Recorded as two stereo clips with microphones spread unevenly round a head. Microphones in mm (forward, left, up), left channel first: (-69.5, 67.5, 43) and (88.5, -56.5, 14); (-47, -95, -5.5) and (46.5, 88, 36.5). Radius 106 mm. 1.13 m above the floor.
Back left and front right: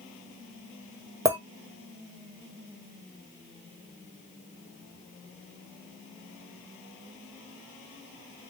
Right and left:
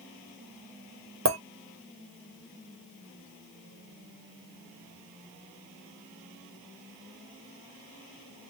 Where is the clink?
40° left, 1.4 m.